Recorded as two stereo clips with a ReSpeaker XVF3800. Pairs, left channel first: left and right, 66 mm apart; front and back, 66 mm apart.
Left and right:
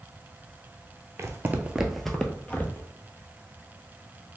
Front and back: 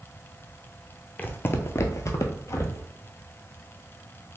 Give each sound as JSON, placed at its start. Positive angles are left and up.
{"t": 1.2, "sound": "footsteps", "azimuth_deg": -60, "distance_m": 0.6}